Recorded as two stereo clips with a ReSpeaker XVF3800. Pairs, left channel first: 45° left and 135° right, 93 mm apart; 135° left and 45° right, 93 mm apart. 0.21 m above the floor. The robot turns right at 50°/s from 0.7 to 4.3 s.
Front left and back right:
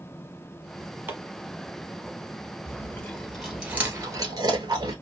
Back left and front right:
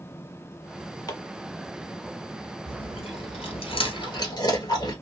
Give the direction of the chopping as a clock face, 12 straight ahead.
7 o'clock.